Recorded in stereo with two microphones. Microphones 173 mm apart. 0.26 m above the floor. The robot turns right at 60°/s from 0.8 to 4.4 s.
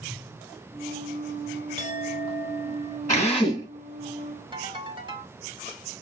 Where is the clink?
80° left, 1.0 m; by 3.0 s 150° left, 1.0 m.